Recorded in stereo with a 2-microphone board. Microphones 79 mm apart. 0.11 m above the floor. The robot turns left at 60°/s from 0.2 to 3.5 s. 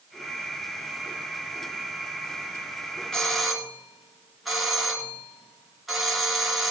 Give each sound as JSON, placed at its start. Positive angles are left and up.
{"t": 3.1, "sound": "a doorbell", "side_deg": 10, "distance_m": 2.5}